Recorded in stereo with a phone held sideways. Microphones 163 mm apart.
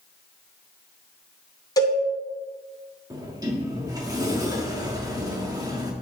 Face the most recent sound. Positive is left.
turn(degrees=-20)  # may be behind; listen again after turning